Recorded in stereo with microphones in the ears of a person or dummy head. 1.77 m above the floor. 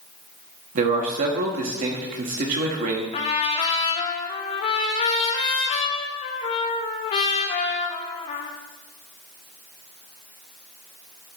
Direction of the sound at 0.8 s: 45° right (ahead or behind).